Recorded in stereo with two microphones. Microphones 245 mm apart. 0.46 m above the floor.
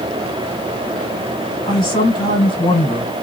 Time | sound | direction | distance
1.7 | a man speaking | 20° left (ahead or behind) | 2 m